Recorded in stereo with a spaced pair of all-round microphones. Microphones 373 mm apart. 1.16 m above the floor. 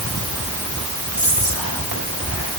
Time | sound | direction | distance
1.1 | whispering | 60° right (ahead or behind) | 5 m